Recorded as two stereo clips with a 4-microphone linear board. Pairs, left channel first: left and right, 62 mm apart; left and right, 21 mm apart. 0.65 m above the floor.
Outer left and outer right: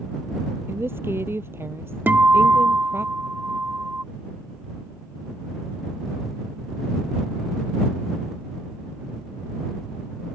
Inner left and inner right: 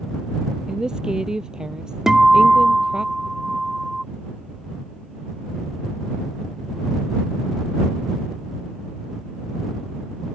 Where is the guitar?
35° right (ahead or behind).